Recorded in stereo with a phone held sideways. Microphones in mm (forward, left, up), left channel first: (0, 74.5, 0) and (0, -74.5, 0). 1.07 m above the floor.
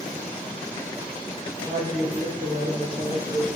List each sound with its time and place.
1.6 s a woman speaking: 55° right (ahead or behind), 1.6 m; by 3.5 s 40° right (ahead or behind), 0.7 m